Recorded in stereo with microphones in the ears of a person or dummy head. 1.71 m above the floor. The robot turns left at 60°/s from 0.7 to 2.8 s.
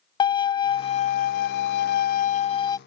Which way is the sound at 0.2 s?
145° left.